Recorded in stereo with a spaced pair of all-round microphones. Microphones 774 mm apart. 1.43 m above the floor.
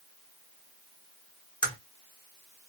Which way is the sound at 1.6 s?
5° left (ahead or behind).